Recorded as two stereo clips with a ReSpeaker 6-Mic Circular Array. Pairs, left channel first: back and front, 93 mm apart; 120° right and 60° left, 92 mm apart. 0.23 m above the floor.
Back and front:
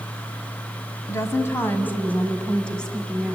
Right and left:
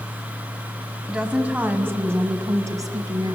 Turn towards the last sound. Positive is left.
turn(degrees=95)